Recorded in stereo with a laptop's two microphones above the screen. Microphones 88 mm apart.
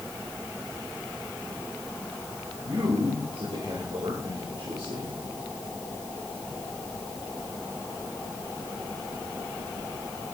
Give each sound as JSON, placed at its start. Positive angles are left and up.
{"t": 2.6, "sound": "a man speaking", "side_deg": -80, "distance_m": 5.0}